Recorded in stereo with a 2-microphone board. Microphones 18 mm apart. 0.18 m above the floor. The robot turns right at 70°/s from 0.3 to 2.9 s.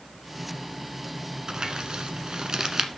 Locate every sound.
1.5 s crumpling: 35° right (ahead or behind), 1.2 m; by 2.9 s 30° right (ahead or behind), 1.2 m